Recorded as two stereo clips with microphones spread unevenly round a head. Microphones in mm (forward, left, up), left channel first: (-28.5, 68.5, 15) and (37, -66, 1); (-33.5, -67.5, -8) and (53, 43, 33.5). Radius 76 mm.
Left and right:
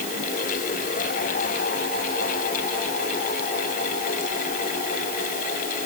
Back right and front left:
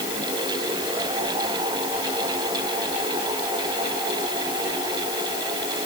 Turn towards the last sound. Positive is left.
No sound to turn to.